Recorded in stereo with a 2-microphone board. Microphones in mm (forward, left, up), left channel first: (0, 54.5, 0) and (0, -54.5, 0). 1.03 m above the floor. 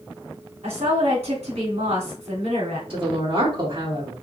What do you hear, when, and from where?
0.6 s a woman speaking: 80° right, 2.5 m
2.9 s a woman speaking: 55° right (ahead or behind), 3 m